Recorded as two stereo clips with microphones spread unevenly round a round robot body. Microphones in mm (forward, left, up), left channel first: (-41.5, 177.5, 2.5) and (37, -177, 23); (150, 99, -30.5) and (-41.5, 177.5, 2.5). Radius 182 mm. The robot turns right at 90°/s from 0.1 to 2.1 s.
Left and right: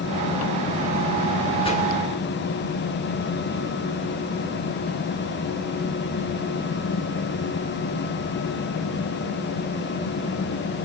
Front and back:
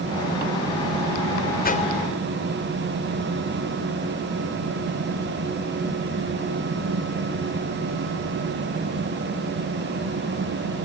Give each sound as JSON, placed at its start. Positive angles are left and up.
{"t": 1.6, "sound": "a whoosh", "azimuth_deg": 25, "distance_m": 3.5}